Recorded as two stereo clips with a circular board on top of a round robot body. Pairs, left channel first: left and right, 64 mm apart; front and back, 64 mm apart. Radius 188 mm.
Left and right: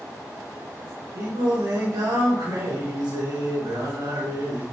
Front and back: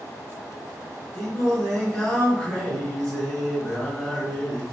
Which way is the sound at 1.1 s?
85° right.